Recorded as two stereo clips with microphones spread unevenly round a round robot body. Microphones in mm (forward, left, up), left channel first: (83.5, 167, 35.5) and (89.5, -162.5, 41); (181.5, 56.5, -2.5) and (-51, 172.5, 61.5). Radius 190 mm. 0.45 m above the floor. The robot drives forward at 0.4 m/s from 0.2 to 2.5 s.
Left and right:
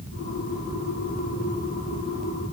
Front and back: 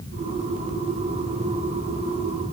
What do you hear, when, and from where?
Only background noise.